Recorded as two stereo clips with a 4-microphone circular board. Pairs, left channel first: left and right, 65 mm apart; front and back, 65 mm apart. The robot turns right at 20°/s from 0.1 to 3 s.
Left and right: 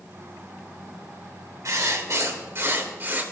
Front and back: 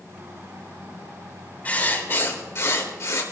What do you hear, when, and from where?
1.6 s writing: 60° right, 2.5 m; by 3.2 s 35° right, 2.5 m